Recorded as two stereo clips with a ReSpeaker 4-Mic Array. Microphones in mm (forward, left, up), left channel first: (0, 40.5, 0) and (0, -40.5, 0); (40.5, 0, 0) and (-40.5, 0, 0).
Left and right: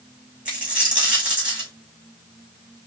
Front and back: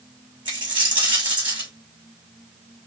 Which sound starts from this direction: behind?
A dropped coin, at 0.5 s.